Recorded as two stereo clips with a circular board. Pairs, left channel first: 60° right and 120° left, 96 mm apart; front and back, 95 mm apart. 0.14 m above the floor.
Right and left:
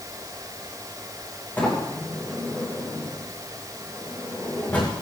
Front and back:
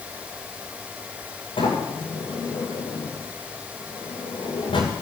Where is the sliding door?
10° left, 9 m.